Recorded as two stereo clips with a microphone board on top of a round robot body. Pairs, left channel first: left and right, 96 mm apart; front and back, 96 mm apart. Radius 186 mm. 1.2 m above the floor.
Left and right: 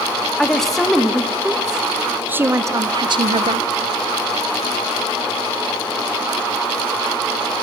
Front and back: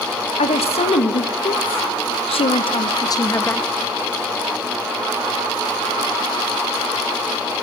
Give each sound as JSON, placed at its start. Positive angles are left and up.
{"t": 0.4, "sound": "a woman speaking", "azimuth_deg": 5, "distance_m": 2.0}